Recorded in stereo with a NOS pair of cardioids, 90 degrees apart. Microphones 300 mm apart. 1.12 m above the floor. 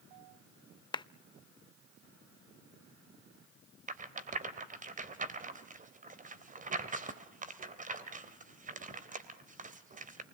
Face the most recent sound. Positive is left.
turn(degrees=-25)